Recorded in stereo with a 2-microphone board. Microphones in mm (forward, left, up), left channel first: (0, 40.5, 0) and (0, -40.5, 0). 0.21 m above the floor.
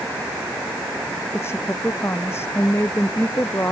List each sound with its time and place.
1.3 s a woman speaking: 30° left (ahead or behind)